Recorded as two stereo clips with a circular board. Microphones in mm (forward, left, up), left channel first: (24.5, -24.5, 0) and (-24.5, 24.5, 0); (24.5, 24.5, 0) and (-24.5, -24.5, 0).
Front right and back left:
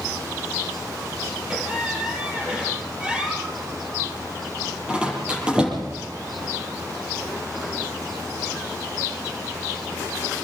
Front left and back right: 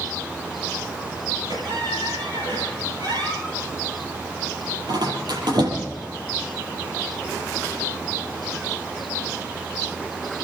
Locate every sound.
1.5 s a squeak: 150° right, 7.5 m